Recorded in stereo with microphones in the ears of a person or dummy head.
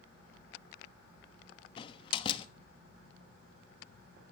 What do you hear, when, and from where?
1.8 s a door slam: 30° left (ahead or behind), 1.2 m